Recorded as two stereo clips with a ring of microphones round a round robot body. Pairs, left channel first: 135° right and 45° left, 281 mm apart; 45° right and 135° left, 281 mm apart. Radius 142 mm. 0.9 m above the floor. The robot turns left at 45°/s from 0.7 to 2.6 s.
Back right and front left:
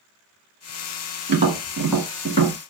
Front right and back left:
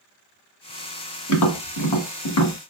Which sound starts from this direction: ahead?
Tapping, at 1.3 s.